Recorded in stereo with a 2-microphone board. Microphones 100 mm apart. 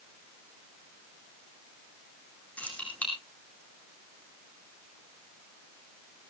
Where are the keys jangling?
15° left (ahead or behind), 5 m.